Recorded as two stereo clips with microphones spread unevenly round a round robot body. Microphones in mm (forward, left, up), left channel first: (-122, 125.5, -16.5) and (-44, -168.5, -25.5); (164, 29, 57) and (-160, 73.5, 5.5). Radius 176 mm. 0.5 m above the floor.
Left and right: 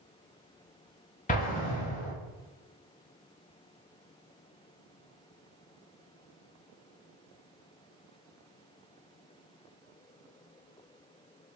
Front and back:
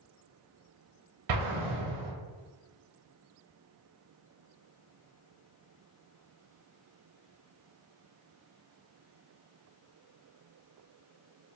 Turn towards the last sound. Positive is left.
turn(degrees=170)